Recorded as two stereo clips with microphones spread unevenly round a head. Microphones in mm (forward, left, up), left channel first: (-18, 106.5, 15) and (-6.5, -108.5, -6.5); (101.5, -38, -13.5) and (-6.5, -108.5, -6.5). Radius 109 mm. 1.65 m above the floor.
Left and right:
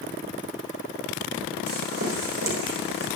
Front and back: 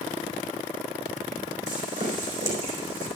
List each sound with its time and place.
1.7 s footsteps: 130° right, 4.5 m